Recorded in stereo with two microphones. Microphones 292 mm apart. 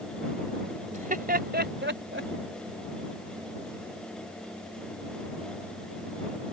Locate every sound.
0.9 s laughter: 25° right (ahead or behind); by 2.3 s 45° right (ahead or behind)